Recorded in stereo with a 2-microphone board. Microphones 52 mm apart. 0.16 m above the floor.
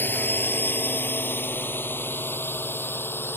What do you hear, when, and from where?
0.0 s a drone: 35° left (ahead or behind); by 3.4 s 40° left (ahead or behind)